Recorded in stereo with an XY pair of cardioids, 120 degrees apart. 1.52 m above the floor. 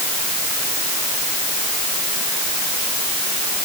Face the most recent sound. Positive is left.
No sound to turn to.